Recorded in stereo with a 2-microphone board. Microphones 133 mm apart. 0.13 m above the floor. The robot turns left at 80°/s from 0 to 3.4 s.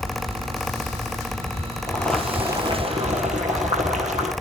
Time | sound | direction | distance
1.9 | boiling | 25° left | 2.5 m